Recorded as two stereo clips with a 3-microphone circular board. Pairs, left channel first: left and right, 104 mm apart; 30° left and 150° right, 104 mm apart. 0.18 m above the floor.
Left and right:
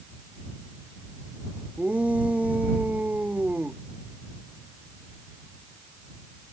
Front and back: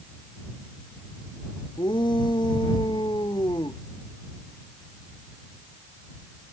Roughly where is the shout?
Ahead.